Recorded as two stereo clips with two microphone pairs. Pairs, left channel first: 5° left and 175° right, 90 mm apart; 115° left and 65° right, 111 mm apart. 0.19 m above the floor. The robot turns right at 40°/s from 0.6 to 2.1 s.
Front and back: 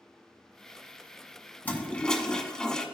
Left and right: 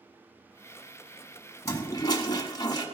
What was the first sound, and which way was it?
A toilet flushing, 65° left.